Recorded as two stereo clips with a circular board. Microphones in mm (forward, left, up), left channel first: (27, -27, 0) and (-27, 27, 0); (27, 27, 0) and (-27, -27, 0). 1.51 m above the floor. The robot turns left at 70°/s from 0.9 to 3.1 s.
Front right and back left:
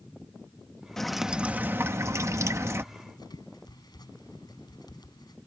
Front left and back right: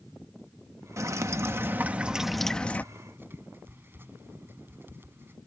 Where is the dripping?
125° right; by 2.8 s 100° left.